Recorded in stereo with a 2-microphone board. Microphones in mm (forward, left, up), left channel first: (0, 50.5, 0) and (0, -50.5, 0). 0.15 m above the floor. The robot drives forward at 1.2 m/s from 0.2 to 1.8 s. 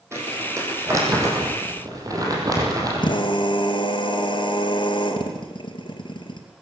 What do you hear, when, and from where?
0.1 s crumpling: 25° right (ahead or behind), 6.5 m; by 3.2 s 35° right (ahead or behind), 5 m
3.0 s a drill: 55° left (ahead or behind), 3 m